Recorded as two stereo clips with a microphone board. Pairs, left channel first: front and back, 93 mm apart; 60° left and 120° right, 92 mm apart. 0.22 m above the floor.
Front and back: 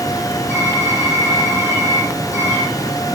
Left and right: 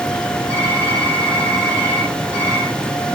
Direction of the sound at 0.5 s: 60° right.